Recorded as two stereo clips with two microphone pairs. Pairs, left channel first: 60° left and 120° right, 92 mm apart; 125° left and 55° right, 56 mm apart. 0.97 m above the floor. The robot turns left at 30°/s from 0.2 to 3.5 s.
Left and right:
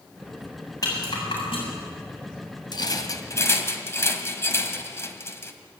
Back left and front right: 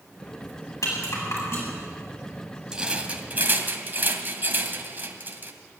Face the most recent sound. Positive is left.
turn(degrees=0)